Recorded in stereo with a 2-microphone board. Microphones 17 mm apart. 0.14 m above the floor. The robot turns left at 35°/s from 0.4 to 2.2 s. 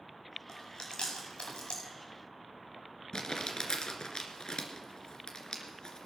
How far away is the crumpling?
About 2.5 m.